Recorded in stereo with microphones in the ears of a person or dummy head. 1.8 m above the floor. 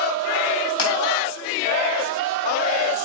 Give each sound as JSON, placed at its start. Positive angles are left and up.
{"t": 0.8, "sound": "crushing", "side_deg": 30, "distance_m": 3.0}